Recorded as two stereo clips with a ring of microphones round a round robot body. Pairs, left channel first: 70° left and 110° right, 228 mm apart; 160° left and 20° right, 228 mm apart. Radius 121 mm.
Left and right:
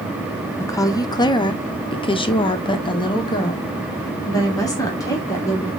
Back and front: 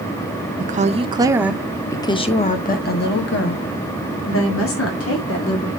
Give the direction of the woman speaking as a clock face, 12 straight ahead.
12 o'clock.